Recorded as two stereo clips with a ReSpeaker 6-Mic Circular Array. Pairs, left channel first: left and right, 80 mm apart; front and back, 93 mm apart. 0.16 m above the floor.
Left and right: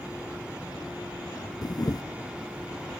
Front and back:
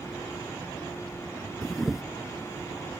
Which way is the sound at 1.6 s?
90° left.